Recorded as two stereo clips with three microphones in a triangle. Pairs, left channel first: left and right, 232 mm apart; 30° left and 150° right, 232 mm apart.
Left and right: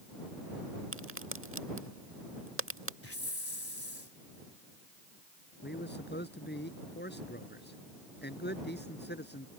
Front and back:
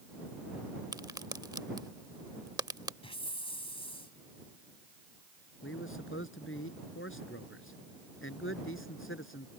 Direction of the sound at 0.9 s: 75° right.